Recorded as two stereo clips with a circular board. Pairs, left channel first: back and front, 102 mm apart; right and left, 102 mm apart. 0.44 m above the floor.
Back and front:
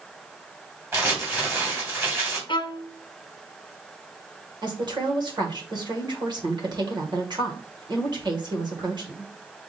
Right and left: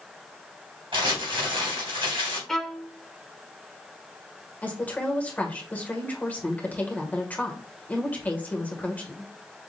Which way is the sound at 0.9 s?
65° left.